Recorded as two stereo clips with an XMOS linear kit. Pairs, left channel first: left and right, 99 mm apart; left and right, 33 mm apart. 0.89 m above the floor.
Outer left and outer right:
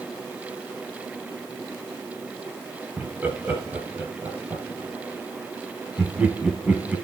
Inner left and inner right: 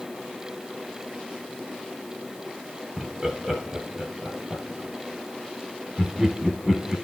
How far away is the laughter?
About 5.5 m.